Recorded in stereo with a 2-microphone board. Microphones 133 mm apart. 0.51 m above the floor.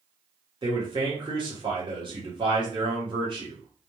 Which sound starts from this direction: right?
A man speaking, at 0.6 s.